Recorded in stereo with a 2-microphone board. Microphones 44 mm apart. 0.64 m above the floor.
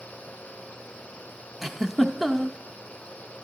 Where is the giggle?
5° right (ahead or behind), 0.7 m.